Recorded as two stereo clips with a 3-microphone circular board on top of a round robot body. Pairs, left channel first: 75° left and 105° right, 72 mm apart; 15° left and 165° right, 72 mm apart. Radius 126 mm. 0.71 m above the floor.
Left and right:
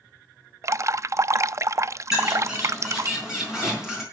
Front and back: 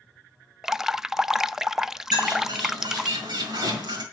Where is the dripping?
85° right, 0.6 m.